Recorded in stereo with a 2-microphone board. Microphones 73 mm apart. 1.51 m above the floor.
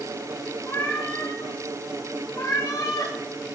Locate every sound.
0.7 s a cat meowing: 35° left (ahead or behind), 6 m; by 3.1 s 50° left (ahead or behind), 6.5 m